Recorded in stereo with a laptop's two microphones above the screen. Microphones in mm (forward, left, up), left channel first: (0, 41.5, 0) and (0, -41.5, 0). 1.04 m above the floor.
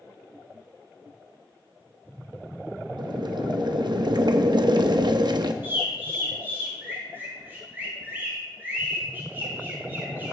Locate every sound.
3.0 s boiling: 60° right (ahead or behind), 0.7 m
5.6 s a bird: 25° right (ahead or behind), 2.5 m